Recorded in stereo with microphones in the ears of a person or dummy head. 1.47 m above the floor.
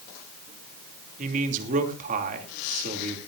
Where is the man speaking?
45° right (ahead or behind), 3 m.